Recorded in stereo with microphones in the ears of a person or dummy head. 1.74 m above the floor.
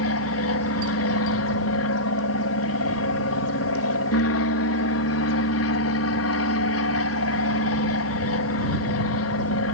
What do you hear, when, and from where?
0.0 s an aircraft: 70° left (ahead or behind)